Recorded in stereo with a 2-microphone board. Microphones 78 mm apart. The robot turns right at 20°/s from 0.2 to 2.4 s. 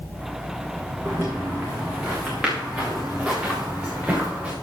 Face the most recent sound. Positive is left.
turn(degrees=-15)  # may be behind; listen again after turning